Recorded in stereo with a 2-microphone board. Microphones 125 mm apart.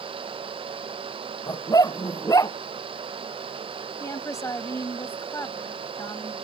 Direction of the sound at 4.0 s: 25° left (ahead or behind).